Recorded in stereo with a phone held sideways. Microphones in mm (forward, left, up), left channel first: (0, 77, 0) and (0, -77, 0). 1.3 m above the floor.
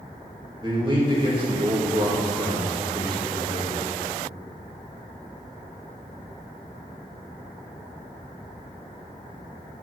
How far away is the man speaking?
About 2 m.